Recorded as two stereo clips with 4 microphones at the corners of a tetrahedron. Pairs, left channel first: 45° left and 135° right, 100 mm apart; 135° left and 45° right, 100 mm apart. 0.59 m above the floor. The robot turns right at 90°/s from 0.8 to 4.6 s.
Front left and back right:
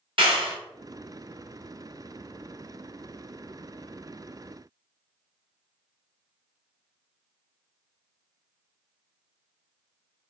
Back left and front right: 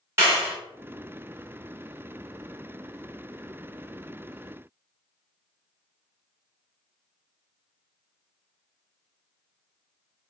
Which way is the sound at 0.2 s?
105° right.